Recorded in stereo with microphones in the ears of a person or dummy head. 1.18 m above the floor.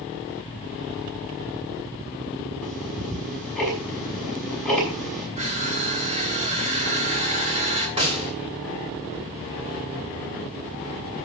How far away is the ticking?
About 6 m.